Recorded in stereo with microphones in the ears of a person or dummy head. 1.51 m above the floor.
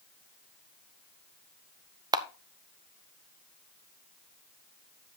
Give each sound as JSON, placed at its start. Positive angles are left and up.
{"t": 2.1, "sound": "a camera shutter", "side_deg": -20, "distance_m": 0.6}